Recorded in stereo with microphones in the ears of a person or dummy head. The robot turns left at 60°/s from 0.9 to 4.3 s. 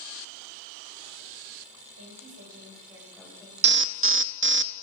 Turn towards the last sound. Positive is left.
turn(degrees=-105)